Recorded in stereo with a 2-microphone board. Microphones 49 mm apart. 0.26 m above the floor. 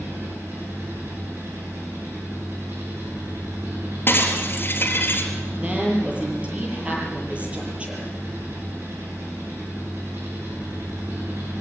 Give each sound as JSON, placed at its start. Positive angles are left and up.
{"t": 0.0, "sound": "an engine running", "side_deg": -70, "distance_m": 8.5}
{"t": 4.1, "sound": "breaking glass", "side_deg": 40, "distance_m": 3.5}
{"t": 5.6, "sound": "a woman speaking", "side_deg": -25, "distance_m": 8.0}